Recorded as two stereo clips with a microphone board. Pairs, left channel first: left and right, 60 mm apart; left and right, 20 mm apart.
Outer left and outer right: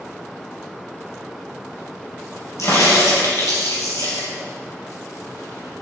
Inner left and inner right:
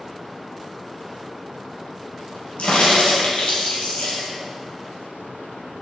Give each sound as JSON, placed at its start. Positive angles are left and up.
{"t": 2.6, "sound": "a crack", "side_deg": 60, "distance_m": 4.0}